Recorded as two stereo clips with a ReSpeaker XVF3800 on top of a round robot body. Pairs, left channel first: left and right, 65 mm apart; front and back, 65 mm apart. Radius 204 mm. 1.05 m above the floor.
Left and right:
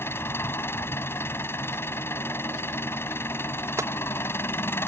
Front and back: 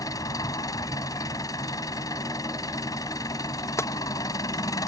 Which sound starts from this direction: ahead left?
An engine running, at 0.0 s.